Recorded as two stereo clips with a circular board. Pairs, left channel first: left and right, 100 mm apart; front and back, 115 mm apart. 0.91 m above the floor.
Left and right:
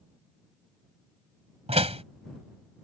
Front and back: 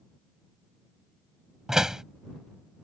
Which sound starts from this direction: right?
A door slam, at 1.7 s.